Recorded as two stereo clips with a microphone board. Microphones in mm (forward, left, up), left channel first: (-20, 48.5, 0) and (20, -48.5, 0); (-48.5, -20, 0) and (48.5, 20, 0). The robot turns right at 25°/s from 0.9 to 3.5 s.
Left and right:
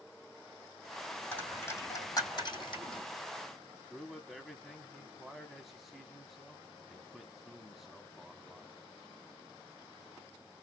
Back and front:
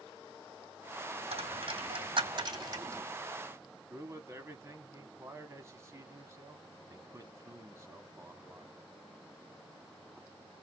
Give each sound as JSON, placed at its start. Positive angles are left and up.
{"t": 1.3, "sound": "a dropped coin", "azimuth_deg": 35, "distance_m": 2.5}
{"t": 3.9, "sound": "a man speaking", "azimuth_deg": 20, "distance_m": 1.0}